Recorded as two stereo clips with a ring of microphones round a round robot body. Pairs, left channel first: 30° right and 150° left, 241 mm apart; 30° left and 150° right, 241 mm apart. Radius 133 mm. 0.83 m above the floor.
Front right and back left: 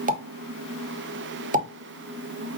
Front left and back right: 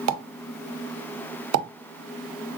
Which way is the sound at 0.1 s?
155° right.